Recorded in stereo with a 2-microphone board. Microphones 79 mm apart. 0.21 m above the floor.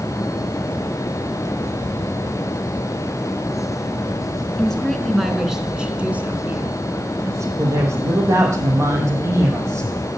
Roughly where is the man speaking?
Right.